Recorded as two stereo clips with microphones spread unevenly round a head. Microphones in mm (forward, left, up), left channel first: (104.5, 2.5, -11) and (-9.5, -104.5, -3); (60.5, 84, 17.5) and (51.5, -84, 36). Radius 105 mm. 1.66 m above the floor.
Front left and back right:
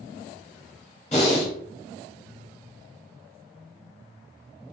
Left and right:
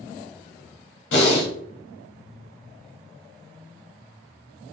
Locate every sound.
1.1 s breathing: 105° left, 0.9 m